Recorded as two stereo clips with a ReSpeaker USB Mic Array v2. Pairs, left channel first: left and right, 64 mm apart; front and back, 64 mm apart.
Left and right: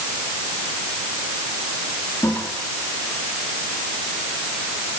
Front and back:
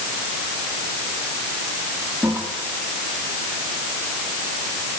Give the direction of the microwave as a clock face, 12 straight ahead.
No microwave in this recording.